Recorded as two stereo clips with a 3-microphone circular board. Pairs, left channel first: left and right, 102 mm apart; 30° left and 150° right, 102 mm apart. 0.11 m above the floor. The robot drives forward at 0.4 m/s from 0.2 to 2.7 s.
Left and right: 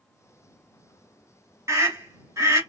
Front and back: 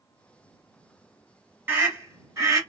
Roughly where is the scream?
Right.